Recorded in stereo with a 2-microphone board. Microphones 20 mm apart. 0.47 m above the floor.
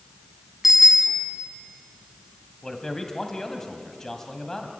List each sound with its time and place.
0.6 s a bicycle bell: 15° right (ahead or behind), 2.5 m
2.6 s a man speaking: 25° left (ahead or behind), 2.5 m